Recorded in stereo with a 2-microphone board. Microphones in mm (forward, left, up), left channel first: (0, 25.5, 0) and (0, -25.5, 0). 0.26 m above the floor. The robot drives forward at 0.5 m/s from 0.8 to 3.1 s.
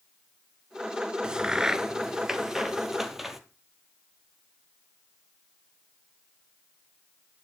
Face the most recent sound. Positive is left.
turn(degrees=-5)  # may be behind; listen again after turning